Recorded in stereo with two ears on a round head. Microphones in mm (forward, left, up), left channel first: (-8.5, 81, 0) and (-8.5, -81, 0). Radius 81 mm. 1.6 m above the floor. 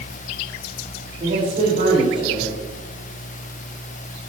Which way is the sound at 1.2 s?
40° right (ahead or behind).